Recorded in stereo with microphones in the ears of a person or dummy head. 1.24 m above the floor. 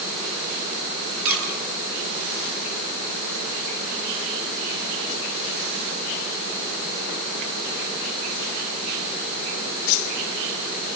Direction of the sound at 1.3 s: 5° right (ahead or behind).